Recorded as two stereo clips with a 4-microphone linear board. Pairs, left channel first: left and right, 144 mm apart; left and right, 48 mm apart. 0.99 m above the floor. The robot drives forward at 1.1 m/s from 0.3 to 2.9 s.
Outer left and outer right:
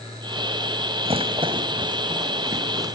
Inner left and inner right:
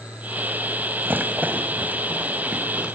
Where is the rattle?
40° right (ahead or behind), 2.5 m; by 3.0 s 25° right (ahead or behind), 4.5 m.